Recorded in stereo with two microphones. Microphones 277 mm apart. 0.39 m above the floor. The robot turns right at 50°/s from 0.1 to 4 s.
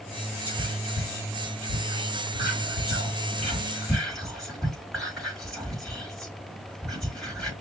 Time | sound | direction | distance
0.5 | whispering | 5° right (ahead or behind) | 3.5 m